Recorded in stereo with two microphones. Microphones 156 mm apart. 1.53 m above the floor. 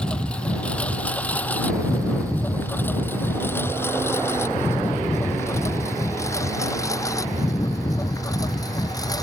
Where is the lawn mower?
5° left (ahead or behind); by 9.2 s 25° left (ahead or behind).